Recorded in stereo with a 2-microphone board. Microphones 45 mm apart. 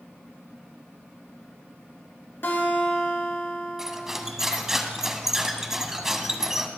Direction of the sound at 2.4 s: 55° left (ahead or behind).